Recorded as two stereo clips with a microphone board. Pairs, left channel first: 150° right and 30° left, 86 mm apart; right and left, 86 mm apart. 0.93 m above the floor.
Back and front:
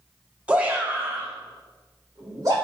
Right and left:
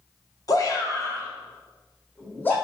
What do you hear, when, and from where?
0.5 s a shout: 45° right, 1.4 m; by 2.5 s 20° right, 3 m